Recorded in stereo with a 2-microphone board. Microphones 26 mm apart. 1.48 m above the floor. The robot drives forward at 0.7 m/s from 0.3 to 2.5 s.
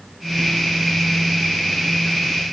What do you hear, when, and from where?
Only background noise.